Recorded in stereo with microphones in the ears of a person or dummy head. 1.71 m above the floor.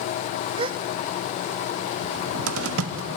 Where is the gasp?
30° right (ahead or behind), 0.6 m.